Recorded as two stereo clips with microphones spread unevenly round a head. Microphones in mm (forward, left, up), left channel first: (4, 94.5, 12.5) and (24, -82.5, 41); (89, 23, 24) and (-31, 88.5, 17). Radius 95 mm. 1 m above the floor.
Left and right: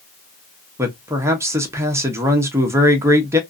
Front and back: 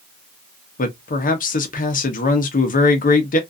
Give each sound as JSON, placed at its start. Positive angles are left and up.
{"t": 0.8, "sound": "a man speaking", "azimuth_deg": -5, "distance_m": 0.8}